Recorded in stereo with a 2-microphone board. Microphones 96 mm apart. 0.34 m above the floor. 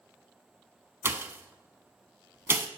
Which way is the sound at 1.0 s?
25° right (ahead or behind).